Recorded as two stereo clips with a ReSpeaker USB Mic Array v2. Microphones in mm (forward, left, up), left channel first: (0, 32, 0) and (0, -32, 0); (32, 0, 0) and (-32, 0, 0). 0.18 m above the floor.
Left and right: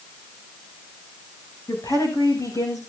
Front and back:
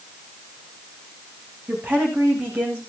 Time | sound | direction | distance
1.7 | a woman speaking | 115° left | 9.5 m